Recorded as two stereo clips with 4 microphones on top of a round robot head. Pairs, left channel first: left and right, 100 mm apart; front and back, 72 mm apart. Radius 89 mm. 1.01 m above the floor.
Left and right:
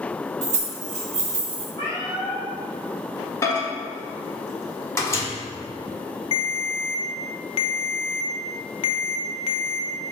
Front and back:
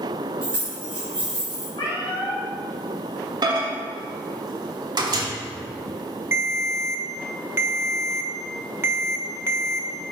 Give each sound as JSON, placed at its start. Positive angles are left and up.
{"t": 0.4, "sound": "keys jangling", "azimuth_deg": -105, "distance_m": 1.8}
{"t": 1.8, "sound": "a cat meowing", "azimuth_deg": 20, "distance_m": 2.5}
{"t": 3.4, "sound": "a microwave", "azimuth_deg": 150, "distance_m": 1.4}
{"t": 6.3, "sound": "a ringtone", "azimuth_deg": 125, "distance_m": 0.6}